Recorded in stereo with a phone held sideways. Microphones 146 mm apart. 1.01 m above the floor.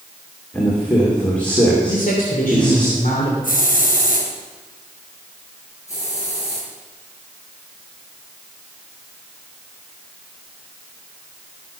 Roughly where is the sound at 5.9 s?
Left.